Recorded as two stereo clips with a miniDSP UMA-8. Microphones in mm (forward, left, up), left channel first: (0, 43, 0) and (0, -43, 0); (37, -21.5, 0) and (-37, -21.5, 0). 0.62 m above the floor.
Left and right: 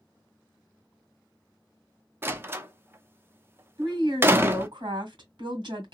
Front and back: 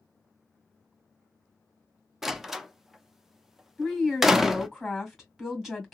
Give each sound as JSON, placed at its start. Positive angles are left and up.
{"t": 2.2, "sound": "a door slam", "azimuth_deg": -100, "distance_m": 0.5}
{"t": 3.8, "sound": "a woman speaking", "azimuth_deg": -95, "distance_m": 1.7}